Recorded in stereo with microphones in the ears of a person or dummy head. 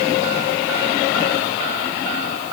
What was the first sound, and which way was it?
Only background noise.